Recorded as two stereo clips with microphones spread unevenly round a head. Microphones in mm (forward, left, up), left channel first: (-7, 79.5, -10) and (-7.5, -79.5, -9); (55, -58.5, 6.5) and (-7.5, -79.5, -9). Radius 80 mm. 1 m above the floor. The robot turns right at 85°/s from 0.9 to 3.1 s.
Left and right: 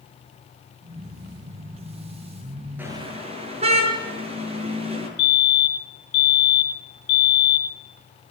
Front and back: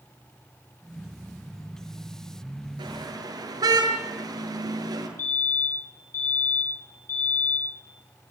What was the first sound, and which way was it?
A car horn, 170° right.